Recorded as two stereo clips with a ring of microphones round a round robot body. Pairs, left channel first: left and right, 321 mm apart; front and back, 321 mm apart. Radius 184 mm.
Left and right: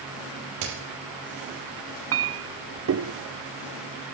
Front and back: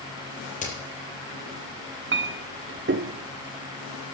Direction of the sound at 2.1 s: 130° right.